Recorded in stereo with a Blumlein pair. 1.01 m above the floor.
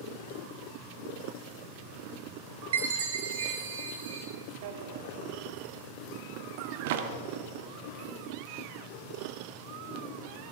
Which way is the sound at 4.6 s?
50° right.